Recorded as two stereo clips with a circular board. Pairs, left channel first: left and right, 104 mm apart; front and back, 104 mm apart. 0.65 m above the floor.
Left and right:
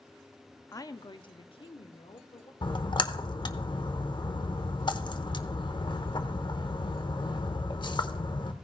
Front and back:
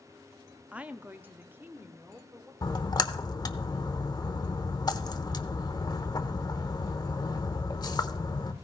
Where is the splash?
50° left, 0.8 m.